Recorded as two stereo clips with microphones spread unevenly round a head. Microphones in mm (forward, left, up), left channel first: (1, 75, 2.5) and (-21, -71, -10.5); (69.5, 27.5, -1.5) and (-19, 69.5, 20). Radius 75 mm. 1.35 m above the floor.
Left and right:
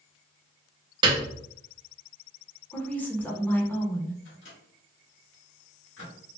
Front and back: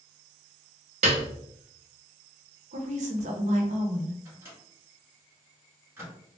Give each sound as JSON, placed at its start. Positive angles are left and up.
{"t": 1.0, "sound": "a piano", "azimuth_deg": -160, "distance_m": 0.7}
{"t": 2.7, "sound": "a woman speaking", "azimuth_deg": 160, "distance_m": 1.2}
{"t": 4.2, "sound": "a microwave", "azimuth_deg": 90, "distance_m": 1.9}